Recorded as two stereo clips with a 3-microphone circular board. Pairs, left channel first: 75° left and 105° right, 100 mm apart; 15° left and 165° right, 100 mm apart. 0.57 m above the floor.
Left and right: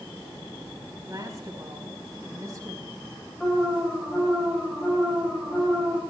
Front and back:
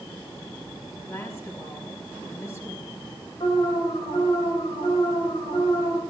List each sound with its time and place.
1.1 s a woman speaking: 50° right, 4.5 m
3.4 s an alarm: 5° right, 3.5 m